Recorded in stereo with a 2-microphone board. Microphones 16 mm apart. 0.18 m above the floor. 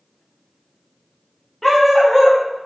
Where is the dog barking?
15° left (ahead or behind), 4.5 m.